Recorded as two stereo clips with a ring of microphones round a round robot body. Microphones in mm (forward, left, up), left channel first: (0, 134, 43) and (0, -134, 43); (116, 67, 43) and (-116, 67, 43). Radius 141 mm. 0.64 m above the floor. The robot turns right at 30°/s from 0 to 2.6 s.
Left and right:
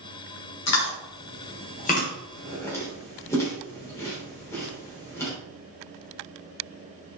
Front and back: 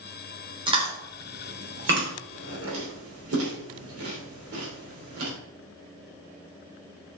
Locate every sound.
0.7 s chewing: 110° left, 3 m; by 5.3 s 170° left, 3 m